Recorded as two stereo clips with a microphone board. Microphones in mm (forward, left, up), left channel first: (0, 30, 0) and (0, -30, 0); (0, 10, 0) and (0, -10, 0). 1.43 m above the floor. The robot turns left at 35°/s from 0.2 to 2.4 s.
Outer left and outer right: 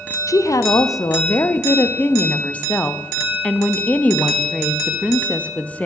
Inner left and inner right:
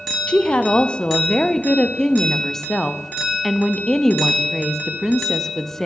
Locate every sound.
0.3 s a woman speaking: 100° left, 0.5 m; by 5.9 s 25° left, 0.5 m